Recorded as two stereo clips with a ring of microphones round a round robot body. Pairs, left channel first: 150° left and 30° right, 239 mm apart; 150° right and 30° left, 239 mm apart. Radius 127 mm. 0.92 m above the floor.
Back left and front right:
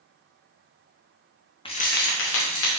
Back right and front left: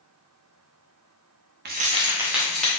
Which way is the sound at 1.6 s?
80° left.